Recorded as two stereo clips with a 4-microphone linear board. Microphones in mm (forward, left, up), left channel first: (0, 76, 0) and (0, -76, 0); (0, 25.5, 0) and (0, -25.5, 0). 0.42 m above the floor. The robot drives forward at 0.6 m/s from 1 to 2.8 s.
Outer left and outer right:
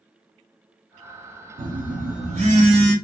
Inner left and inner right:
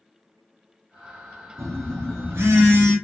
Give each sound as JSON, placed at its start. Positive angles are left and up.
{"t": 1.6, "sound": "a phone buzzing", "side_deg": -70, "distance_m": 0.9}